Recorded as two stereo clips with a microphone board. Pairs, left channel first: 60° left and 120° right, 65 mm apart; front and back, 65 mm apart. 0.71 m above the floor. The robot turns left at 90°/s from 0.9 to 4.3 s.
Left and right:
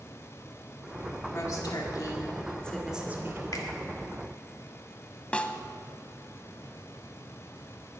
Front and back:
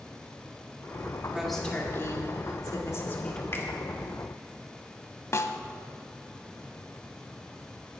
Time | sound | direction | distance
1.3 | a woman speaking | 105° left | 2 m
3.5 | a finger snap | 45° left | 1.7 m
5.3 | a snare drum | 5° right | 0.7 m